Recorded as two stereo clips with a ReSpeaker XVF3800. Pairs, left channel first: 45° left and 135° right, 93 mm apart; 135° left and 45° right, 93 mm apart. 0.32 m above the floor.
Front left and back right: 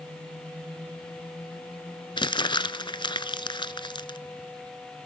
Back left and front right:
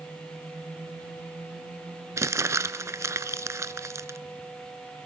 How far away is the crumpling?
About 0.7 m.